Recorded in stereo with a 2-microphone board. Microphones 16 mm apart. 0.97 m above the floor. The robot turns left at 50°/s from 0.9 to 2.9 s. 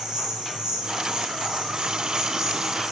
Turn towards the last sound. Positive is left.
turn(degrees=-160)